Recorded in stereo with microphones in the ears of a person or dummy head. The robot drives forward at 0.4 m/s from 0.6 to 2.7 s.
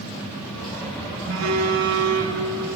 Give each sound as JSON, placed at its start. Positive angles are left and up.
{"t": 1.3, "sound": "a phone buzzing", "side_deg": -75, "distance_m": 3.0}